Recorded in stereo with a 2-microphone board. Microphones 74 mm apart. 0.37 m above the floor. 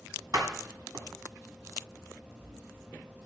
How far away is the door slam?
About 1.6 m.